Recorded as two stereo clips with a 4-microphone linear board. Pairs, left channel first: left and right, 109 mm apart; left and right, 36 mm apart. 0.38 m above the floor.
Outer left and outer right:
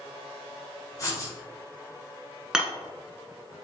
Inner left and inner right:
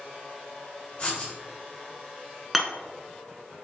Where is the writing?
30° left (ahead or behind), 1.8 m.